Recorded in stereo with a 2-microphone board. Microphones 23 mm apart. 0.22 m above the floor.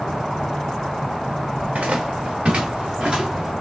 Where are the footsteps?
70° right (ahead or behind), 1.5 m; by 3.5 s 30° right (ahead or behind), 2 m.